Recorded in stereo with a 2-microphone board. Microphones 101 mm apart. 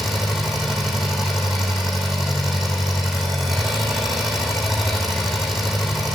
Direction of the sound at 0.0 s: 5° right (ahead or behind).